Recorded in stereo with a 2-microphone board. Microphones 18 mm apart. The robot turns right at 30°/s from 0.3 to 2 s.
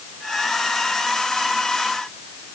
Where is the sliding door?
I don't hear a sliding door.